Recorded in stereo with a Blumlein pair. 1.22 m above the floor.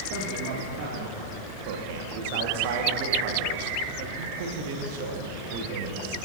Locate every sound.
0.1 s a man speaking: 50° right, 2.5 m
1.7 s a man speaking: 50° right, 1.6 m